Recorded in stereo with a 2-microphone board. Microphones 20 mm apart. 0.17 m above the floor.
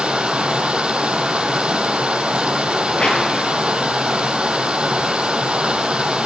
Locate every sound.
0.0 s running water: 60° right (ahead or behind), 0.8 m
2.9 s a whoosh: 70° left (ahead or behind), 2.5 m